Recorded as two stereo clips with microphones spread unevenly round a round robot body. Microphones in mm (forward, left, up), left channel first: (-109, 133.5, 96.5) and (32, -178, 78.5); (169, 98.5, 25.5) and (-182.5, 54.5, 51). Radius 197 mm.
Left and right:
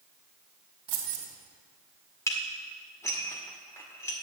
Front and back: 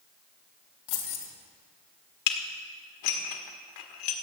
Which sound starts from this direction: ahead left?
Dishes clattering, at 2.3 s.